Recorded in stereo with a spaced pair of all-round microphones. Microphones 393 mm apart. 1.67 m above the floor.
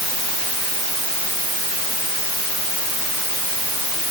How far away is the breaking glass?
No breaking glass in this recording.